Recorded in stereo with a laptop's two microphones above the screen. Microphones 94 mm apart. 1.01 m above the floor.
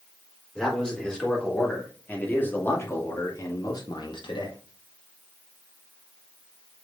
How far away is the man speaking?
About 4 m.